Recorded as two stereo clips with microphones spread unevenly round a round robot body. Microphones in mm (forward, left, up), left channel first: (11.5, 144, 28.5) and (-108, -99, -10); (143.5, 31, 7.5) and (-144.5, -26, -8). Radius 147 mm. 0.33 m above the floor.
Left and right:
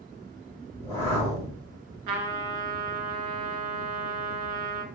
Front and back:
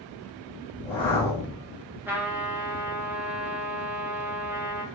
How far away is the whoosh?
About 1.7 m.